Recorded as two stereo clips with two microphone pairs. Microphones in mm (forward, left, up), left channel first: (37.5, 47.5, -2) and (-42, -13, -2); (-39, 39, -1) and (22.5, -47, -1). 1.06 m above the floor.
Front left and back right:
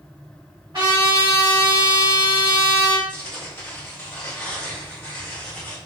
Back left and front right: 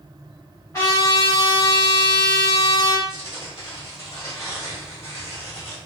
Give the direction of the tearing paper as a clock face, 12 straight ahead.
9 o'clock.